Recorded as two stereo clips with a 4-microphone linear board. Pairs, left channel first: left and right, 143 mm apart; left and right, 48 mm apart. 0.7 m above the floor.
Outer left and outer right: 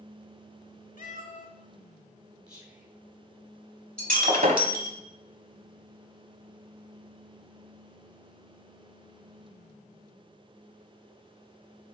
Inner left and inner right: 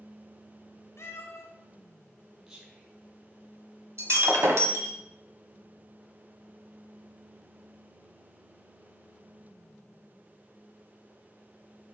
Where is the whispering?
25° right (ahead or behind), 3 m.